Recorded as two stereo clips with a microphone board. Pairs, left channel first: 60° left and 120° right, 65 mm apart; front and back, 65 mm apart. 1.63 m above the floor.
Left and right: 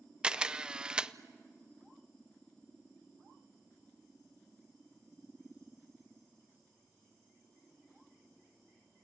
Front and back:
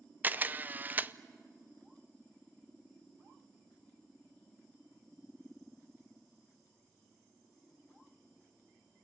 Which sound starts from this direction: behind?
A camera shutter, at 0.2 s.